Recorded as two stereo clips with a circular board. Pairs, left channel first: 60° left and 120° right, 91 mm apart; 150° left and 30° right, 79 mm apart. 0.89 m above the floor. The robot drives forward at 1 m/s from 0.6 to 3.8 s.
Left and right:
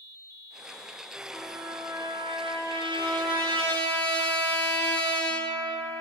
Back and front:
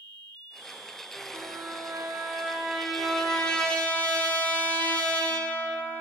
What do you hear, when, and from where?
1.3 s a trumpet: 65° right, 1.7 m; by 6.0 s 140° right, 2.5 m